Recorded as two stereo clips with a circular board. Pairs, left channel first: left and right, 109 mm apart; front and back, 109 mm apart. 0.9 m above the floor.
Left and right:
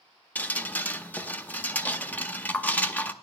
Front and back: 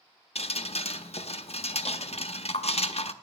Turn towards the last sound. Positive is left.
turn(degrees=15)